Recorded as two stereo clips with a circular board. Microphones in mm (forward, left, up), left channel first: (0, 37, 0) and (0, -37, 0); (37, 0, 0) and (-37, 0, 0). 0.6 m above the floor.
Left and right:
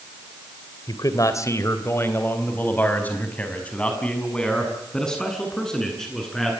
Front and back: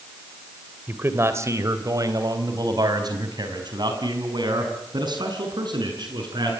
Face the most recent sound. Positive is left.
turn(degrees=175)